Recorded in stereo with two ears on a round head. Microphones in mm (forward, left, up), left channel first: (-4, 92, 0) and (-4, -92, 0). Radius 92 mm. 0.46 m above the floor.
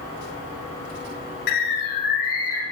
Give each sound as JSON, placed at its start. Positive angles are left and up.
{"t": 1.5, "sound": "a bird", "side_deg": 50, "distance_m": 3.0}